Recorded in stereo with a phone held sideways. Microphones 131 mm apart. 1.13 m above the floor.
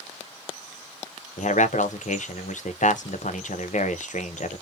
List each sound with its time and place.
1.4 s a man speaking: 70° left (ahead or behind), 0.5 m